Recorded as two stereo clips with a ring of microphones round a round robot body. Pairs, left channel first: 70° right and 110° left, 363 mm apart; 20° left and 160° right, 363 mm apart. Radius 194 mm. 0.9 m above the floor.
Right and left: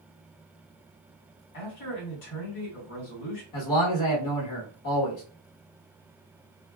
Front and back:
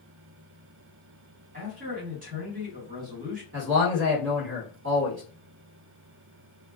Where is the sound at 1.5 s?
90° right, 1.6 m.